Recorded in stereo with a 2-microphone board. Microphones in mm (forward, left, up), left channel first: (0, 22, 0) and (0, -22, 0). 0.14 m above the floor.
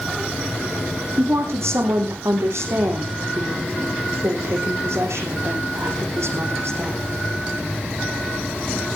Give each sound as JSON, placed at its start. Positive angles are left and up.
{"t": 1.2, "sound": "a woman speaking", "side_deg": -80, "distance_m": 5.5}